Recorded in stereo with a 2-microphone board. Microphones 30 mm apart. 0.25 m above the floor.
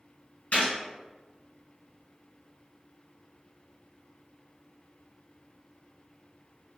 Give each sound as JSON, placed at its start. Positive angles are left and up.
{"t": 0.5, "sound": "a gunshot", "side_deg": 60, "distance_m": 1.4}